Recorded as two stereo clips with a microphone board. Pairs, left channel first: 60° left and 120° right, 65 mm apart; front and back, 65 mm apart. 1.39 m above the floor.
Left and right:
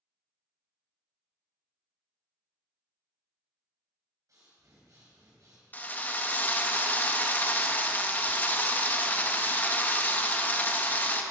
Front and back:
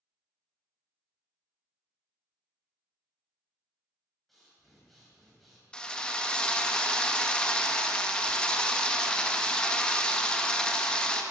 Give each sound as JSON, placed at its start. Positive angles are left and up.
{"t": 4.3, "sound": "breathing", "azimuth_deg": -90, "distance_m": 3.0}
{"t": 5.7, "sound": "a drill", "azimuth_deg": 60, "distance_m": 0.7}